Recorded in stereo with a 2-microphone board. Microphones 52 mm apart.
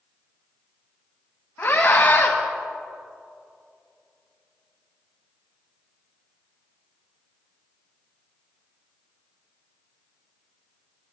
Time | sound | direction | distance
1.6 | a scream | 45° left (ahead or behind) | 2 m